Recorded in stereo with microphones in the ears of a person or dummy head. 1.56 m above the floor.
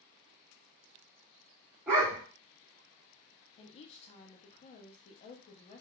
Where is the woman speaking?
30° left (ahead or behind), 0.6 m.